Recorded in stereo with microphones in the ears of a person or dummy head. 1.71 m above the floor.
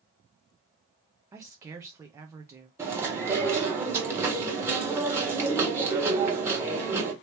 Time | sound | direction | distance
1.3 | a woman speaking | 20° right (ahead or behind) | 0.6 m
2.8 | chewing | 15° right (ahead or behind) | 1.4 m